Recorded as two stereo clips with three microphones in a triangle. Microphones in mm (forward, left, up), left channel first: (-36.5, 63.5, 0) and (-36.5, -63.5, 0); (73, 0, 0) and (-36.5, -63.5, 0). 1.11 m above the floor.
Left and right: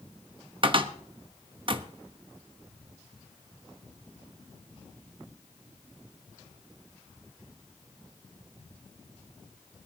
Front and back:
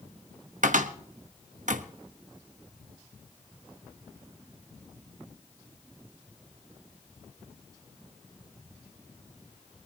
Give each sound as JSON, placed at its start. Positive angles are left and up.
{"t": 0.6, "sound": "a cupboard door", "azimuth_deg": -140, "distance_m": 0.9}